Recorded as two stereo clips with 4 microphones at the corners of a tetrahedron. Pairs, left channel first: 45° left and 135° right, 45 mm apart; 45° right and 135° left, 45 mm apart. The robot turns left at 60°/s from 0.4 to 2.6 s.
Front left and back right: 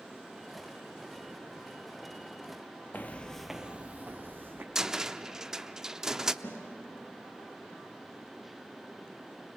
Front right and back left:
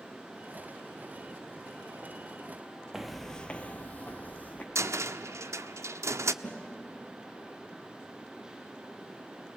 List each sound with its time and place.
2.9 s footsteps: 55° left, 0.9 m; by 4.7 s 100° right, 1.9 m
4.8 s a cupboard door: 145° left, 0.6 m
6.4 s a snare drum: 10° left, 6 m